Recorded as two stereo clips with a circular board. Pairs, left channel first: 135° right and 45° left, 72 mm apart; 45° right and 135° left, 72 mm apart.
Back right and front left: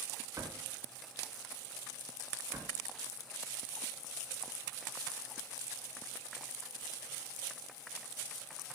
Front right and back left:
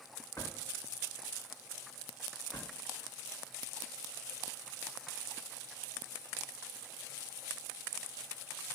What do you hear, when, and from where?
0.4 s a drawer: 5° right, 2 m